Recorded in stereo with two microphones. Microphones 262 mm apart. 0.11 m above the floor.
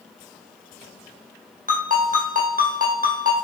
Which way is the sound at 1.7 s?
35° right (ahead or behind).